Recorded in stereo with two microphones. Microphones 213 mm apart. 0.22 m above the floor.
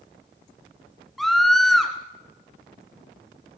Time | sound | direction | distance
1.2 | a scream | centre (ahead or behind) | 2.5 m